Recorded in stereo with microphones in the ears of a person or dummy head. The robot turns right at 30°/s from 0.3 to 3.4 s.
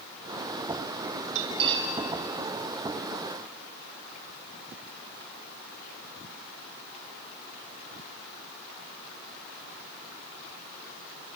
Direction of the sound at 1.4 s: 30° right (ahead or behind).